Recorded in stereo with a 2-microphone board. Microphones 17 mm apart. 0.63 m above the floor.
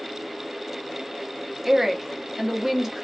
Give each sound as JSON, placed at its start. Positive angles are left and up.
{"t": 1.6, "sound": "a woman speaking", "side_deg": -20, "distance_m": 0.6}